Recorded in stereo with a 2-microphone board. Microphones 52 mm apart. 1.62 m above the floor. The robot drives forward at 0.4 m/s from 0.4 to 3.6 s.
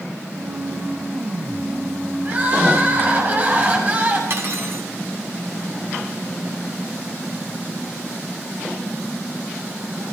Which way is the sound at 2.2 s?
35° right (ahead or behind).